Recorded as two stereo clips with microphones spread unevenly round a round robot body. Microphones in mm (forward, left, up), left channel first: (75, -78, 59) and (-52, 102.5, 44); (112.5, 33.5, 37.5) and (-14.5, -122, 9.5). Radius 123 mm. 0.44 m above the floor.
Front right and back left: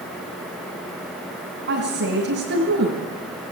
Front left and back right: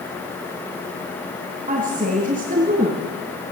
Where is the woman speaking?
165° left, 3.5 m.